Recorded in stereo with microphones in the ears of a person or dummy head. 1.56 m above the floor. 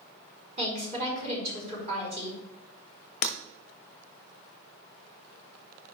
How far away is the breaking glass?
About 1.0 m.